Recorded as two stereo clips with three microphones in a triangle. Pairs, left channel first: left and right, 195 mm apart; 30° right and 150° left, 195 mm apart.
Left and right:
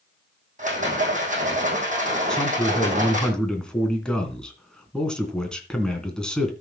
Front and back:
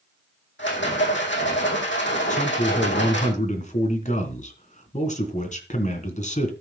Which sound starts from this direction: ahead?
A man speaking, at 2.3 s.